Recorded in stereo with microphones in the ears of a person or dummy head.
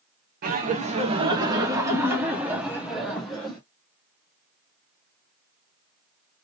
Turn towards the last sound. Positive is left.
turn(degrees=5)  # may be behind; listen again after turning